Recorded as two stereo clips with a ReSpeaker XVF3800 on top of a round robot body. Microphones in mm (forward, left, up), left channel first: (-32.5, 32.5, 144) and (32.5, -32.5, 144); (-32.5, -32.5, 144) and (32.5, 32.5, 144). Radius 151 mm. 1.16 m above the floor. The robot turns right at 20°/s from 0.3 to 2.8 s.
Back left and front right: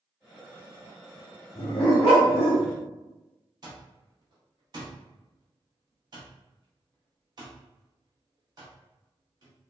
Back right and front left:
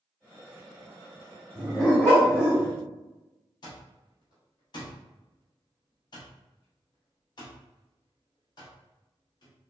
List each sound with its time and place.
1.6 s a dog barking: 140° left, 0.7 m; by 2.7 s 165° left, 0.7 m
3.6 s an alarm clock: 90° right, 0.6 m